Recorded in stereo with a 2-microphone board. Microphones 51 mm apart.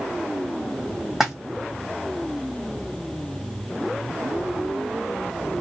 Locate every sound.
1.2 s a splash: 5° right (ahead or behind), 1.1 m